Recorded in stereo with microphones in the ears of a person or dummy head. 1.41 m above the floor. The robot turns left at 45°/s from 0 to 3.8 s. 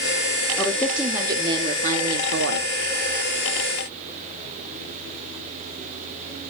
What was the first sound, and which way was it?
A woman speaking, 15° left.